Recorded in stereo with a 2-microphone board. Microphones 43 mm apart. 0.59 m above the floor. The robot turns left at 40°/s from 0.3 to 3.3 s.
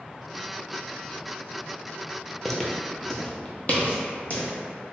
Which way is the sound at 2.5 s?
10° left (ahead or behind).